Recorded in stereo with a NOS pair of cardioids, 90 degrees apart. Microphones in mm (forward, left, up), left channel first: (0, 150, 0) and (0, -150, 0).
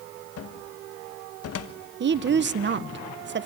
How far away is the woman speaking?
About 1.3 m.